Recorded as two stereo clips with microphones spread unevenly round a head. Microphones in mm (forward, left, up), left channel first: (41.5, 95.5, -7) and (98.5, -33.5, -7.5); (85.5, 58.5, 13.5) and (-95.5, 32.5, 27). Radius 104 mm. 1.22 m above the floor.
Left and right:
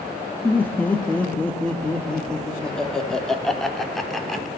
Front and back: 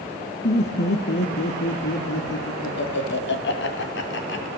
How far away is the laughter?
About 2 m.